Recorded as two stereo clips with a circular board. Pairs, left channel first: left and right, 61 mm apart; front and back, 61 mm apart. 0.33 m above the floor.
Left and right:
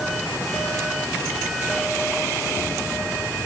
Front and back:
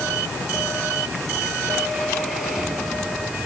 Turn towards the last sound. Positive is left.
No sound to turn to.